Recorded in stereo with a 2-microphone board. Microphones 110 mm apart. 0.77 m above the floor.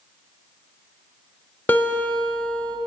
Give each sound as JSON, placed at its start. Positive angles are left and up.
{"t": 1.7, "sound": "a guitar", "side_deg": 15, "distance_m": 0.6}